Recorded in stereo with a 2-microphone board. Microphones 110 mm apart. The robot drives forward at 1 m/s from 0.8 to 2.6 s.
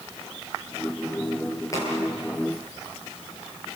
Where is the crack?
30° left (ahead or behind), 8 m; by 2.0 s 25° left (ahead or behind), 8 m.